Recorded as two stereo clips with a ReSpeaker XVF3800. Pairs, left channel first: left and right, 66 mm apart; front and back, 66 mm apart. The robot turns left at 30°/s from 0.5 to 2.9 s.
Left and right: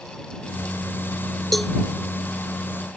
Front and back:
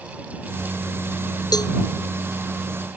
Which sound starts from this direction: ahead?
A cowbell, at 1.5 s.